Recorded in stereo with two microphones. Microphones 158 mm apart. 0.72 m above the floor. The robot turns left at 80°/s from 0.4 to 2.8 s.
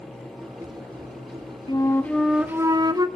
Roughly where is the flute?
Ahead left.